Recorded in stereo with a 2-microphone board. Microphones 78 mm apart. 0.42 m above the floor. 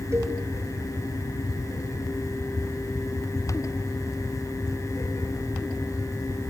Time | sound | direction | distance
0.1 | a cowbell | 40° right (ahead or behind) | 1.9 m